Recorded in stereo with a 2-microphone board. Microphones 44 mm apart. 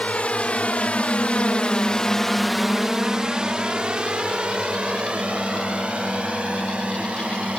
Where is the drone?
30° left (ahead or behind); by 7.6 s 25° right (ahead or behind).